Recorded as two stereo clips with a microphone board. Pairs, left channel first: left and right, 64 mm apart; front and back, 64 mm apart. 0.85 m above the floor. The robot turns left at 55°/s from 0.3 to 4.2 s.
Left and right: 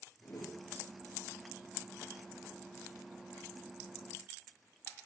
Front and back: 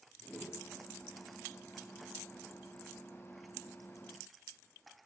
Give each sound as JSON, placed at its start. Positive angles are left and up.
{"t": 0.2, "sound": "a whoosh", "azimuth_deg": 90, "distance_m": 1.3}